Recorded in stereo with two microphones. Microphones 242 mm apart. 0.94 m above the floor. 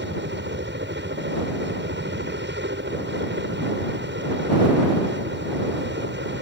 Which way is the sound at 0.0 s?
50° right (ahead or behind).